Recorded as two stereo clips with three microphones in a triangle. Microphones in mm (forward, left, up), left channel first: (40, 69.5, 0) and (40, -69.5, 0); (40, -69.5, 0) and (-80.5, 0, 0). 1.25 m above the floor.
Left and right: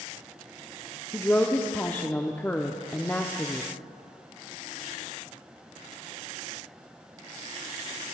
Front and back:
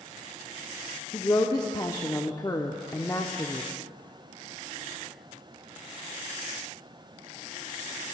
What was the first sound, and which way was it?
A woman speaking, 20° left.